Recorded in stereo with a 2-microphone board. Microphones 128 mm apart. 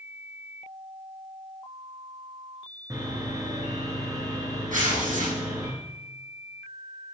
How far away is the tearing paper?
About 8 m.